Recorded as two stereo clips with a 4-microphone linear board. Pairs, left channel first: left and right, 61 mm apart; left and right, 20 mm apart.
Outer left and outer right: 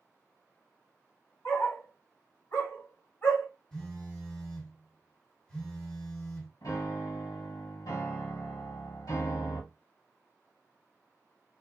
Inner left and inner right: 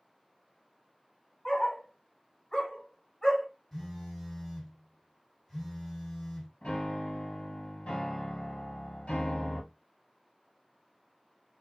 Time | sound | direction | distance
1.4 | a dog barking | 40° left (ahead or behind) | 1.0 m
3.7 | a phone buzzing | 10° left (ahead or behind) | 1.9 m
6.6 | a piano | 85° left | 0.9 m